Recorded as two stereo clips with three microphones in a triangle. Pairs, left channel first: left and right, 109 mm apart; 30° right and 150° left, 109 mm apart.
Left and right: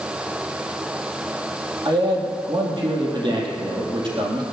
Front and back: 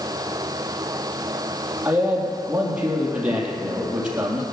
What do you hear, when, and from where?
1.9 s a man speaking: 130° right, 3.5 m